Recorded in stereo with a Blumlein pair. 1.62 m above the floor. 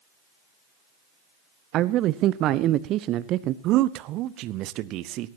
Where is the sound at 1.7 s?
35° right, 0.8 m.